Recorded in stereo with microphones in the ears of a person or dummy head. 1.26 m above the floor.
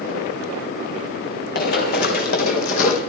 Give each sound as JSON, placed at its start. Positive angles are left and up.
{"t": 1.6, "sound": "running footsteps", "side_deg": 65, "distance_m": 3.5}